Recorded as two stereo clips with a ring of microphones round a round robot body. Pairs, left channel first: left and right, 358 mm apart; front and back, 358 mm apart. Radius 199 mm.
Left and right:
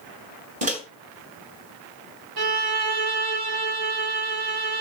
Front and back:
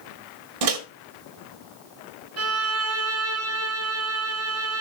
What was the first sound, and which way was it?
A microwave, 160° right.